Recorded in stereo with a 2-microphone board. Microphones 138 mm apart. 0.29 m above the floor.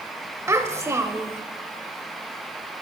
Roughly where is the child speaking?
Right.